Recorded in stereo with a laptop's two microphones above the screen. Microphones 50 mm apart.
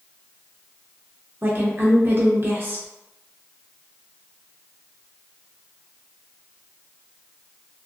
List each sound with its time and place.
1.4 s a woman speaking: 45° right (ahead or behind), 0.7 m